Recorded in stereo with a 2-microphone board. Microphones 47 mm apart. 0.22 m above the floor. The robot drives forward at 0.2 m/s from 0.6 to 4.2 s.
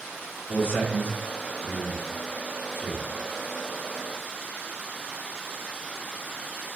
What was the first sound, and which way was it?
A man speaking, 55° left (ahead or behind).